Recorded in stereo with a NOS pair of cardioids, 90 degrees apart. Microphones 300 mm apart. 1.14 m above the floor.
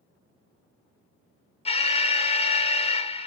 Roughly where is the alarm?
Ahead.